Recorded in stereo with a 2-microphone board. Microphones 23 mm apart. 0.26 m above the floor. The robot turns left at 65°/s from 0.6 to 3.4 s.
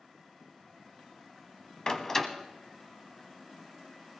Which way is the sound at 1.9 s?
35° left (ahead or behind).